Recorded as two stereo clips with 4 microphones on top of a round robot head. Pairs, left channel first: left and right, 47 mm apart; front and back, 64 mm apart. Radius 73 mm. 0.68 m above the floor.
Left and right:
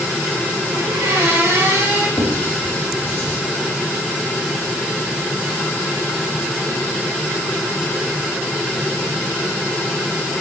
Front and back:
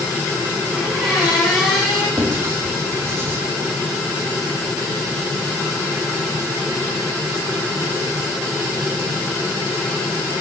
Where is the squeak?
95° right, 2.5 m.